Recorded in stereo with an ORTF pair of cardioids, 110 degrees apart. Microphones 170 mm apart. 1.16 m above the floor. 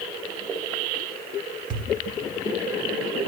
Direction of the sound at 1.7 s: 55° right.